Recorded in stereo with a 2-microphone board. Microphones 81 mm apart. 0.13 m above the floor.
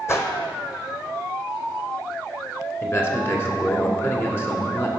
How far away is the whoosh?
About 0.9 m.